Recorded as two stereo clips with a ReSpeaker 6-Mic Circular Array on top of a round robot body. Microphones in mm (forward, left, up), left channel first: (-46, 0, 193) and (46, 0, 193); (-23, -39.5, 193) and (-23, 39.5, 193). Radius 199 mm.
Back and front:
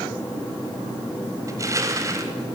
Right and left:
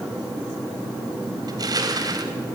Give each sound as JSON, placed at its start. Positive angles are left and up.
{"t": 1.5, "sound": "crushing", "azimuth_deg": 55, "distance_m": 2.0}